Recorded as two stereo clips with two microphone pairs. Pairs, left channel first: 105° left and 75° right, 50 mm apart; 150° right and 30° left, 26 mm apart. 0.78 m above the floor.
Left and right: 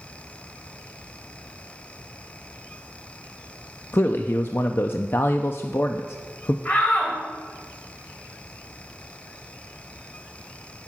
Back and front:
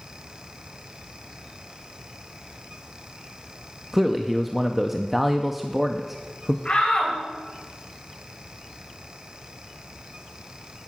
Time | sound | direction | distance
3.9 | a man speaking | 105° left | 0.5 m
6.7 | a shout | 165° left | 4 m